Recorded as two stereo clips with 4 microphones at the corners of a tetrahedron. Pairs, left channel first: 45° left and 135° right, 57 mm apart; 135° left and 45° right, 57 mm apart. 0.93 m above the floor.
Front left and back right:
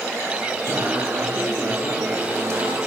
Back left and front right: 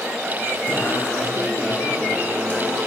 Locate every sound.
0.7 s singing: 165° right, 8 m